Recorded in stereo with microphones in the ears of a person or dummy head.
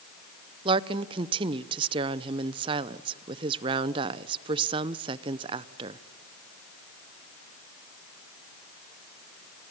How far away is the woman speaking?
About 0.6 m.